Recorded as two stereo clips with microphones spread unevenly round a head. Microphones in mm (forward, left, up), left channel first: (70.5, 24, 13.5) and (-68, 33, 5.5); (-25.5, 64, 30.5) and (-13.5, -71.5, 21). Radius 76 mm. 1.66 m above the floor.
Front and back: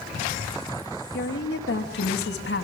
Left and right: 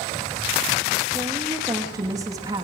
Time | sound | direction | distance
1.1 | a woman speaking | 15° right | 3 m